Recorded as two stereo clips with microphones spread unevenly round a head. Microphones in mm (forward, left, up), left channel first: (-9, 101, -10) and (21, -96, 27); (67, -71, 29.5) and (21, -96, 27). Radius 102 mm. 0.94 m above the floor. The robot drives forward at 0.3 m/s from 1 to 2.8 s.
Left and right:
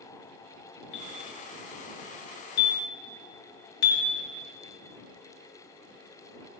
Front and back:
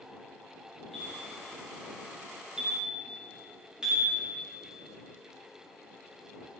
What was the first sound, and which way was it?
A bell, 115° left.